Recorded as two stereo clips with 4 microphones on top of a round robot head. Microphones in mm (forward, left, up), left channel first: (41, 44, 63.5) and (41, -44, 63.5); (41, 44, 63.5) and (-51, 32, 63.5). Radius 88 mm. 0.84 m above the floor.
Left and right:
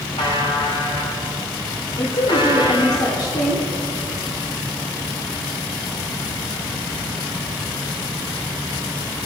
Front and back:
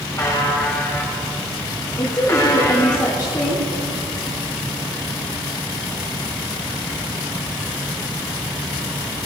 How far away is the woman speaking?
About 2.5 m.